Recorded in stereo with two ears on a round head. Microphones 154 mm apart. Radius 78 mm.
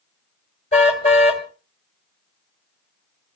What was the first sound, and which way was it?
A car horn, 40° left (ahead or behind).